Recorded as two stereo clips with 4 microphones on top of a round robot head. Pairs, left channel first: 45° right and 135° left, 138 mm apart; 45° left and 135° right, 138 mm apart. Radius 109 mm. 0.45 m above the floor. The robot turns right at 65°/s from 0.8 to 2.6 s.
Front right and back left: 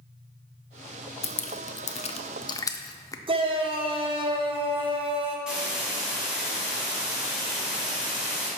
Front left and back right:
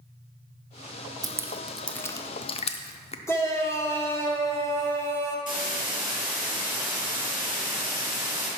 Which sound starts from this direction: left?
A shout, at 3.3 s.